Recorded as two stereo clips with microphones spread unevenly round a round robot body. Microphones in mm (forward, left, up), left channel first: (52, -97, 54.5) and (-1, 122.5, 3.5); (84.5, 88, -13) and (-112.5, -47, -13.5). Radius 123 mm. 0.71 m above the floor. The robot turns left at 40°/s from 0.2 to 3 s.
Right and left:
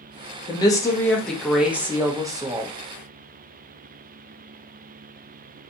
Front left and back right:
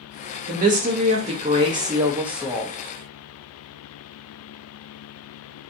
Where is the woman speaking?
150° right, 0.6 m; by 2.7 s 120° left, 0.6 m.